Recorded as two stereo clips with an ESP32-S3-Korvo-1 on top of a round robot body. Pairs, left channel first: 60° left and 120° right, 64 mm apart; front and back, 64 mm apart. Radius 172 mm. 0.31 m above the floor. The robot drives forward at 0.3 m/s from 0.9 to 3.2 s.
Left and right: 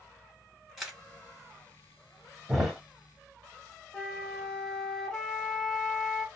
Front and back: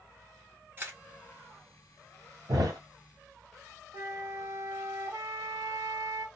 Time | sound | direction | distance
0.8 | a camera shutter | 155° left | 1.6 m
2.5 | a thud | 155° left | 1.7 m
3.9 | a flute | 140° left | 1.2 m